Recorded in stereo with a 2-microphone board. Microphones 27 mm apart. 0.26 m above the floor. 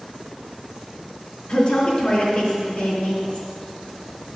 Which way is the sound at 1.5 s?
40° left (ahead or behind).